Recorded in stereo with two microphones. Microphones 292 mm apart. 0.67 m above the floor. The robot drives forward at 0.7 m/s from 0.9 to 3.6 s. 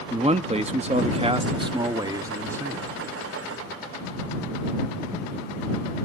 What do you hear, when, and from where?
0.1 s a man speaking: 20° right (ahead or behind), 0.6 m; by 2.9 s 10° right (ahead or behind), 1.6 m